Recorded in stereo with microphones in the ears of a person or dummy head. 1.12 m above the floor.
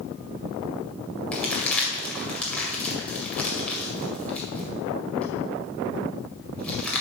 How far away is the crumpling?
About 2.0 m.